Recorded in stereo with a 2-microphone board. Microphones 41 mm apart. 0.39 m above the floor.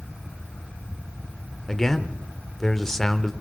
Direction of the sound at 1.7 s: 10° left (ahead or behind).